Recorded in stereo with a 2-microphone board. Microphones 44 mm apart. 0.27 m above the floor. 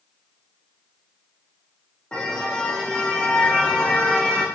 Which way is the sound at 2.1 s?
25° left (ahead or behind).